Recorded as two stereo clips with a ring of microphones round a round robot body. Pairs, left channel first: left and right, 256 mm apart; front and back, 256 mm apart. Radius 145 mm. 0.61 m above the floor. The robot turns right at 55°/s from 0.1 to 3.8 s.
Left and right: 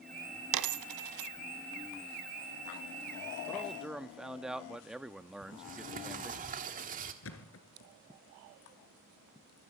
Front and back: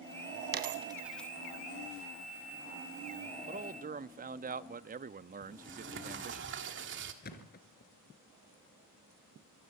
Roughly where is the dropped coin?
Behind right.